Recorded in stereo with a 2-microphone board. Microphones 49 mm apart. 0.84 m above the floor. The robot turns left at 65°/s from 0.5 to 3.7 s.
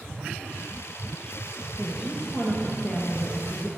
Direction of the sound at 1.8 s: 175° right.